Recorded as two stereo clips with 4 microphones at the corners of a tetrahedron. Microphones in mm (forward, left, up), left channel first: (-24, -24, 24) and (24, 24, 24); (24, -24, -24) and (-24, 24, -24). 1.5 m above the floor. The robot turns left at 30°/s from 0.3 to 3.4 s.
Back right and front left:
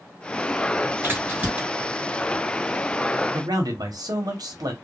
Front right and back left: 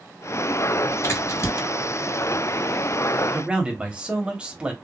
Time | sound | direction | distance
1.0 | a crack | straight ahead | 2.0 m
3.3 | a man speaking | 60° left | 0.9 m